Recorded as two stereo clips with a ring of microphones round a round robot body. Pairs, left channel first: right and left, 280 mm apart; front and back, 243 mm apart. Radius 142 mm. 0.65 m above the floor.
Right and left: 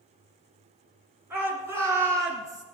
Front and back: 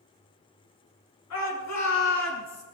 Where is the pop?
I don't hear a pop.